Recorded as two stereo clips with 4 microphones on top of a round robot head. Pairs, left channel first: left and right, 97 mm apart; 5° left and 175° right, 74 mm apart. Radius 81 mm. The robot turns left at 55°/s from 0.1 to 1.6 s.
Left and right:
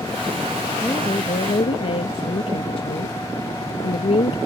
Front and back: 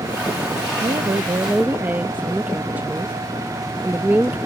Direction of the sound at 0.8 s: 165° left.